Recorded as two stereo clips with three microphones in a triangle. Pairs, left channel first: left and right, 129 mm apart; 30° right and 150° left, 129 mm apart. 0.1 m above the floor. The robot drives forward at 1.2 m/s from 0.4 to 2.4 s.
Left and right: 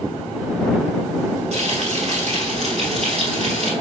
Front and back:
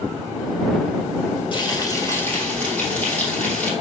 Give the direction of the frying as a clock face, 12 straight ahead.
2 o'clock.